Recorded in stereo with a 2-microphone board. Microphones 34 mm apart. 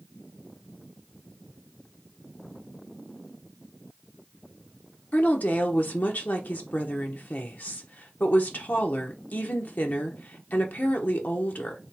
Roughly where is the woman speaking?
Left.